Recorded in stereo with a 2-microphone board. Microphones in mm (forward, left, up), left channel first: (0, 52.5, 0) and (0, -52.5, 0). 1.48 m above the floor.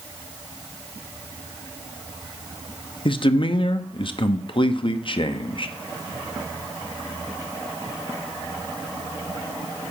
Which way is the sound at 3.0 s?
50° left (ahead or behind).